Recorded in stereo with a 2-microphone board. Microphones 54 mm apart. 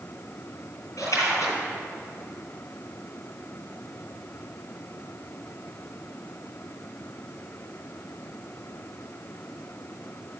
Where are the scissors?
I don't hear scissors.